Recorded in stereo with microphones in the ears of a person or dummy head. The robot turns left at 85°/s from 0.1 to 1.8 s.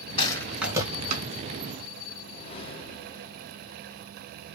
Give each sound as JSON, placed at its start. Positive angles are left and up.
{"t": 0.2, "sound": "a rattle", "side_deg": 30, "distance_m": 2.5}
{"t": 2.1, "sound": "a whoosh", "side_deg": 35, "distance_m": 1.4}